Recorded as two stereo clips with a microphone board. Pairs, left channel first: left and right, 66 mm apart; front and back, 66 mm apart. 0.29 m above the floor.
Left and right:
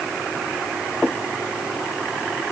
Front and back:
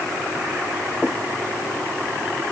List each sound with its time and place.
Only background noise.